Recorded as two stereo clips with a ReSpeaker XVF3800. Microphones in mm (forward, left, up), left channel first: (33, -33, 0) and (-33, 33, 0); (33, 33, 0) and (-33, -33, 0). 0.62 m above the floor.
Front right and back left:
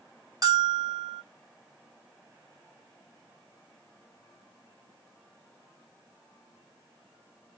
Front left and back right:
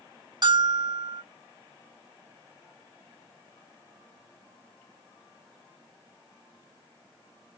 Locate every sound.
0.4 s a bell: 175° right, 0.7 m